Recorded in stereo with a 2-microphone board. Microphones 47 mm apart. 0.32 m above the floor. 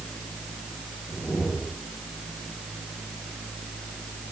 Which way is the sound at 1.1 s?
50° left (ahead or behind).